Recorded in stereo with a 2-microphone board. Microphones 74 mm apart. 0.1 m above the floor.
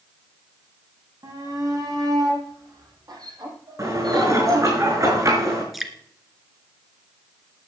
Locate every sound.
1.2 s a shout: 55° right (ahead or behind), 7 m; by 4.8 s 60° right (ahead or behind), 3.5 m
3.8 s dishes clattering: 45° right (ahead or behind), 5 m
5.7 s dripping: centre (ahead or behind), 1.6 m